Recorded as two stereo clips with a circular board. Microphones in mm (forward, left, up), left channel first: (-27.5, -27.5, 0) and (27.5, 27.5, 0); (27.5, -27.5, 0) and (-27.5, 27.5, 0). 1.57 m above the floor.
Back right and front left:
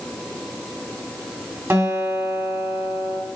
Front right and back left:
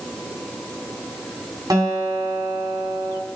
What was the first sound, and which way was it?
A guitar, 100° left.